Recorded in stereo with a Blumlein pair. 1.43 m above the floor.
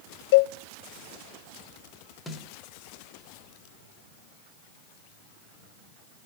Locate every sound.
0.3 s a cowbell: 50° left, 1.1 m
2.3 s a snare drum: 5° left, 3.5 m